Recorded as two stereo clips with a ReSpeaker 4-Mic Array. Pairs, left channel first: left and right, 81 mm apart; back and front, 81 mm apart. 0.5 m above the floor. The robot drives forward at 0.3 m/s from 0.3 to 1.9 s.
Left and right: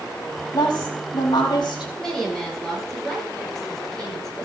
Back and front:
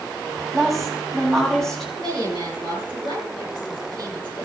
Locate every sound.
0.5 s a woman speaking: 90° left, 4.5 m; by 1.9 s 95° left, 4.5 m
2.0 s a woman speaking: 170° left, 8.5 m